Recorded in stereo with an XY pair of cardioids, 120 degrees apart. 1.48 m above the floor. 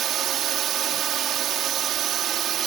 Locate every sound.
0.0 s a drone: 60° right